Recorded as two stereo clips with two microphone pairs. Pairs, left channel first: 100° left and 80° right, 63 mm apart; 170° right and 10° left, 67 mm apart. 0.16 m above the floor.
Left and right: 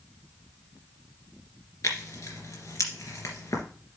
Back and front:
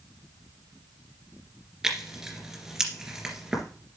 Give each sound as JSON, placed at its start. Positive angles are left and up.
{"t": 1.8, "sound": "tearing paper", "azimuth_deg": 90, "distance_m": 2.5}